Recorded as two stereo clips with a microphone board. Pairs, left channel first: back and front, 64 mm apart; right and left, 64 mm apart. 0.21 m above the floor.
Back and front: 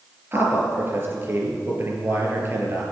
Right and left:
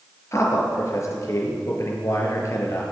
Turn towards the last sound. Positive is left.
turn(degrees=-55)